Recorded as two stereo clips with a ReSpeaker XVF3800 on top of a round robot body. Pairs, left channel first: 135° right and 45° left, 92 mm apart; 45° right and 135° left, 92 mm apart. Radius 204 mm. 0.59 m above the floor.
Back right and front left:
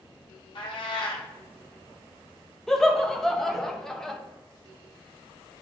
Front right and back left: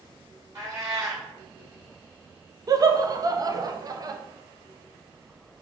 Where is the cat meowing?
165° right, 1.3 m.